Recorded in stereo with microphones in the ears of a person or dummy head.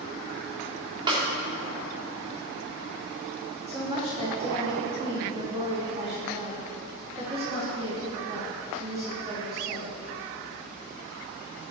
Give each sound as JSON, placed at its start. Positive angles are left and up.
{"t": 1.1, "sound": "a snare drum", "side_deg": -30, "distance_m": 3.0}
{"t": 3.7, "sound": "a woman speaking", "side_deg": -25, "distance_m": 4.0}